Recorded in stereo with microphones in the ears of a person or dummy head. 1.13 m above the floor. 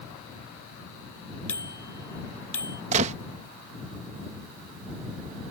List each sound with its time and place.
1.5 s a bicycle bell: 5° left (ahead or behind)
2.9 s a gunshot: 40° right (ahead or behind)